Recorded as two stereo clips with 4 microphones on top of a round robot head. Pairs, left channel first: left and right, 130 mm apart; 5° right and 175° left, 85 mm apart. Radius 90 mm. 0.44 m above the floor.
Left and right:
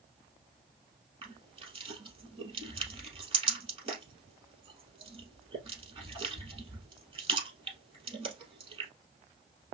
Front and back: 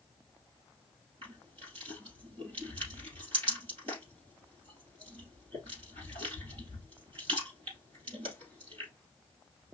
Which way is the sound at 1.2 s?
135° right.